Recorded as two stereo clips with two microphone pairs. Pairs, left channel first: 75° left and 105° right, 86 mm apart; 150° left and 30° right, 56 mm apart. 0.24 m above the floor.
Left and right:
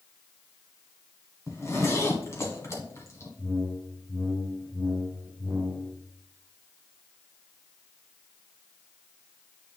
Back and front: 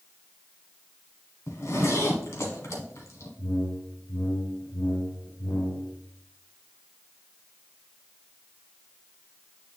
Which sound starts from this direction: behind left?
A zipper, at 1.5 s.